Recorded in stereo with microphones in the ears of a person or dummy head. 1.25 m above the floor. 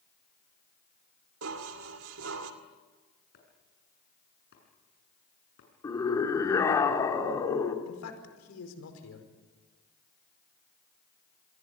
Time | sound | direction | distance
1.4 | dishes clattering | 75° right (ahead or behind) | 2 m
3.3 | chopping | 60° left (ahead or behind) | 7.5 m
5.8 | a scream | 20° left (ahead or behind) | 3.5 m
7.8 | a man speaking | 85° left | 4.5 m